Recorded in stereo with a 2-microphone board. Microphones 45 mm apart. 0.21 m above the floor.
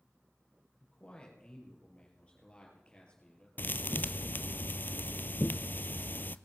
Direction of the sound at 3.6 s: 50° left (ahead or behind).